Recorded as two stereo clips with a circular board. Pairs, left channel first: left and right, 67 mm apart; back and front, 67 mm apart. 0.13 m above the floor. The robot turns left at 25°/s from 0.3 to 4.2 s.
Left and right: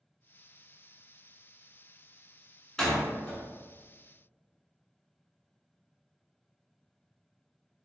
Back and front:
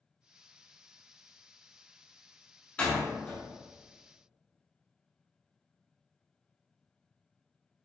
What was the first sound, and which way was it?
A door slam, 155° left.